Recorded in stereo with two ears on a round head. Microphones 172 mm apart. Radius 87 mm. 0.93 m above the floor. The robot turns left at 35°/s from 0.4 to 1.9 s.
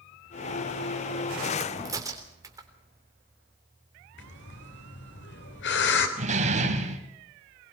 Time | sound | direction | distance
1.6 | a crack | 30° right (ahead or behind) | 3.5 m
4.2 | breathing | 65° left (ahead or behind) | 3 m
6.2 | a door slam | 40° right (ahead or behind) | 3.5 m